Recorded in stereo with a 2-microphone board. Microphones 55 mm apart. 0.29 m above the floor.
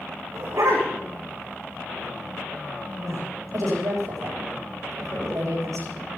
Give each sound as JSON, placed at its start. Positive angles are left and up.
{"t": 0.3, "sound": "a dog barking", "side_deg": -75, "distance_m": 5.5}
{"t": 3.0, "sound": "a woman speaking", "side_deg": -80, "distance_m": 8.0}